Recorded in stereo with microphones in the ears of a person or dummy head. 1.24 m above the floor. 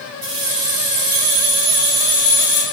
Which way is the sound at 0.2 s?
55° right (ahead or behind).